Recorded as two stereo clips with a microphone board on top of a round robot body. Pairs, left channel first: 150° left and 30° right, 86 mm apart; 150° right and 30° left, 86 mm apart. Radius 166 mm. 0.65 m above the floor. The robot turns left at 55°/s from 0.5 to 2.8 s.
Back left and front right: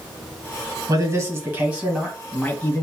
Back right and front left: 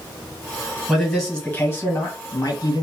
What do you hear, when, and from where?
0.9 s a man speaking: 50° right, 1.6 m; by 2.8 s 155° right, 1.6 m